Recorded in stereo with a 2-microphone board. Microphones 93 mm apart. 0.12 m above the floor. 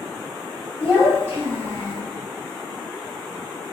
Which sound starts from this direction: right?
A child speaking, at 0.8 s.